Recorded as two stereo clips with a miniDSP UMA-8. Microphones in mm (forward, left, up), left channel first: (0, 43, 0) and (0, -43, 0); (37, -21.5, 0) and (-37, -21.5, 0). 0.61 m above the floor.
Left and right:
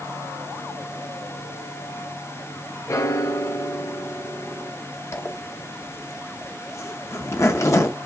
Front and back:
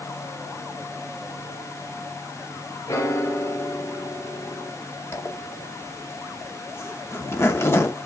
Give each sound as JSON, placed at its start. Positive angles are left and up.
{"t": 2.9, "sound": "a piano", "azimuth_deg": 40, "distance_m": 0.6}
{"t": 5.1, "sound": "a zipper", "azimuth_deg": 45, "distance_m": 0.7}